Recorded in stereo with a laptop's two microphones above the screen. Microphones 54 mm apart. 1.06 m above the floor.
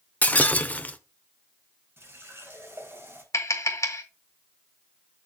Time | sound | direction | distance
0.2 | breaking glass | 30° left (ahead or behind) | 0.8 m
2.0 | a running tap | 50° right (ahead or behind) | 3.5 m
3.3 | tapping | 65° left (ahead or behind) | 1.5 m